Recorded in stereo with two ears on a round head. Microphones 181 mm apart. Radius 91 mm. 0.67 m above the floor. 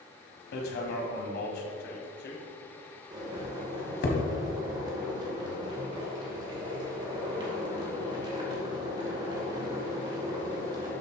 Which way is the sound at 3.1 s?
25° right (ahead or behind).